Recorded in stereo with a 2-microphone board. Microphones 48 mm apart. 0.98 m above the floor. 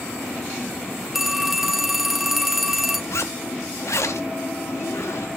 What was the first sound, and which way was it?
A phone ringing, 5° right (ahead or behind).